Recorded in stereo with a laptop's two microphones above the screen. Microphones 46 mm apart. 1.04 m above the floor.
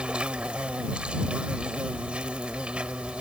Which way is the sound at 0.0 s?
25° right (ahead or behind).